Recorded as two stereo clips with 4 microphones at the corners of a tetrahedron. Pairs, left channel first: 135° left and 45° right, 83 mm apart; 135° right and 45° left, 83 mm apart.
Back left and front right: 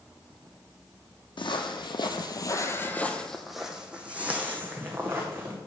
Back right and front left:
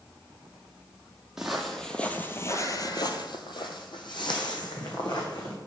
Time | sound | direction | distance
1.4 | footsteps | 130° left | 0.9 m